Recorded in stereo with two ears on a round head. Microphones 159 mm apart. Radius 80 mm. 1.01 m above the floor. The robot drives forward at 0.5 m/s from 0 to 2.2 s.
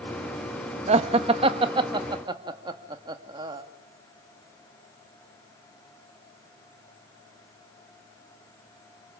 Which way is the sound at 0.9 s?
40° right (ahead or behind).